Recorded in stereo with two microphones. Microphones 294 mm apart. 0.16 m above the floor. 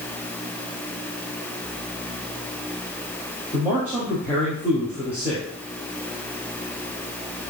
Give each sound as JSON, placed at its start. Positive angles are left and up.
{"t": 3.5, "sound": "a man speaking", "side_deg": -5, "distance_m": 3.0}